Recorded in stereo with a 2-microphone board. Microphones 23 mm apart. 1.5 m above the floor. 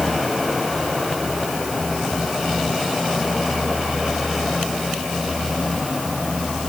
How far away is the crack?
No crack in this recording.